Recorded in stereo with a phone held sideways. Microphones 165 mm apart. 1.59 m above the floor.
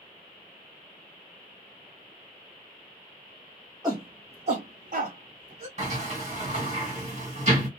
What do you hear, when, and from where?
3.8 s a shout: 25° right (ahead or behind), 0.8 m; by 5.7 s 45° right (ahead or behind), 1.1 m
5.8 s a sliding door: 50° right (ahead or behind), 1.3 m